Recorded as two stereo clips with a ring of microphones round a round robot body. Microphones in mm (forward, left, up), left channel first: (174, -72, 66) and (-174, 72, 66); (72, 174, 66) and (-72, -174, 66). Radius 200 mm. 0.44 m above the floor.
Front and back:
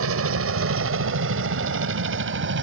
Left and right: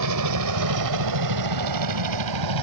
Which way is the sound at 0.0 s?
150° right.